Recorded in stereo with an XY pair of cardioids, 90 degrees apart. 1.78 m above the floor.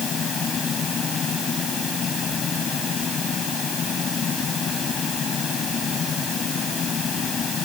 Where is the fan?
55° left.